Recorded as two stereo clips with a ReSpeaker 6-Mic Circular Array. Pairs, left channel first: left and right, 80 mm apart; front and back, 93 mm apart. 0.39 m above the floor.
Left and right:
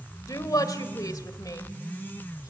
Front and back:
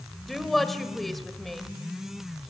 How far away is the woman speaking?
About 1.9 m.